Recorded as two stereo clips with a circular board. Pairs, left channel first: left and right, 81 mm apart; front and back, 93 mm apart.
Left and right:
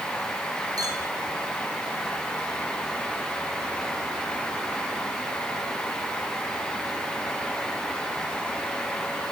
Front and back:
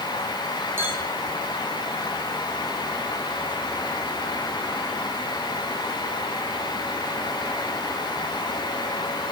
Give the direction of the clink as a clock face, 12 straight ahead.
4 o'clock.